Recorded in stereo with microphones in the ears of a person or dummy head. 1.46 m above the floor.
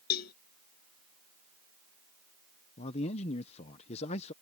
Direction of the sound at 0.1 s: 55° left (ahead or behind).